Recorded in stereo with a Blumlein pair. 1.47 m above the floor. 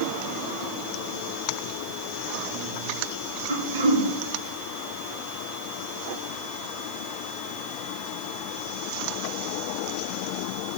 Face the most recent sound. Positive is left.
turn(degrees=-65)